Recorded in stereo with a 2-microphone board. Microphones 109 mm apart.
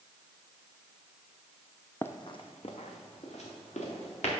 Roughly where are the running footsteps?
Centre.